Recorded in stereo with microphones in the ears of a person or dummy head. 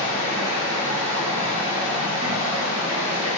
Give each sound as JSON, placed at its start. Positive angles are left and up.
{"t": 0.0, "sound": "running water", "side_deg": -35, "distance_m": 2.5}